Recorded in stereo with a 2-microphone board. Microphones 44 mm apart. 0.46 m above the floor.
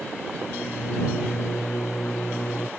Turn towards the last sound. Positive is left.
turn(degrees=85)